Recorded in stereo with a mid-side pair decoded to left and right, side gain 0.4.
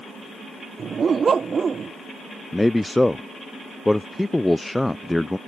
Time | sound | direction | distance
0.8 | a dog barking | 45° right | ?
2.5 | a man speaking | 10° left | ?